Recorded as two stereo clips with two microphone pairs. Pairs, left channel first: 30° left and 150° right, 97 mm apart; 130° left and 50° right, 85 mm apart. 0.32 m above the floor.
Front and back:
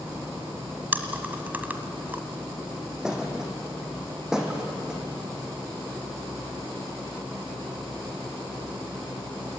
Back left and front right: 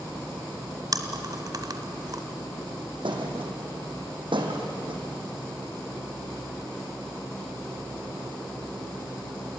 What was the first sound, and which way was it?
Chewing, 80° right.